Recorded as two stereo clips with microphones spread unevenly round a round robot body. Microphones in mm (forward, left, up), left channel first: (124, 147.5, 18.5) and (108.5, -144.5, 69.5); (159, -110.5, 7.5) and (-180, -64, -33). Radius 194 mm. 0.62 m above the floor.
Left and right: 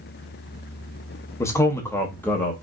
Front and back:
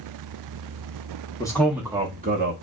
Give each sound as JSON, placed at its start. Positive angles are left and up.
{"t": 1.4, "sound": "a man speaking", "azimuth_deg": 70, "distance_m": 0.9}